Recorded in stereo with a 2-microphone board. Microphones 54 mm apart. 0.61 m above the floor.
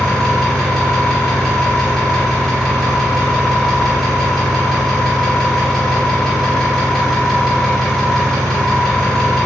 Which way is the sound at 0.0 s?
10° left (ahead or behind).